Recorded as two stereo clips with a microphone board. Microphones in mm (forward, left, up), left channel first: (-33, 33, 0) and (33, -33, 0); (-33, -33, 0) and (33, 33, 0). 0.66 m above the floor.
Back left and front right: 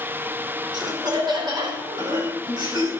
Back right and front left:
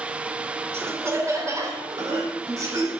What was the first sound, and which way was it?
Laughter, 15° right.